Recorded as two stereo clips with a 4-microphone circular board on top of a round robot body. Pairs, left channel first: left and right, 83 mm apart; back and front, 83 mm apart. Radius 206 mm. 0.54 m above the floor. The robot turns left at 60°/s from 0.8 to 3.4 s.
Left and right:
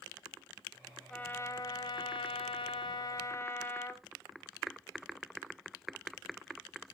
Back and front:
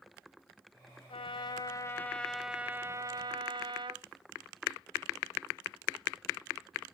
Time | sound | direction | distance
1.1 | a trumpet | 165° left | 0.7 m